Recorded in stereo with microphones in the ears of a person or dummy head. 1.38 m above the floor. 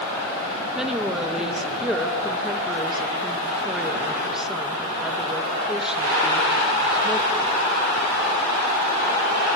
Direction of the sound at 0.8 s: Centre (ahead or behind).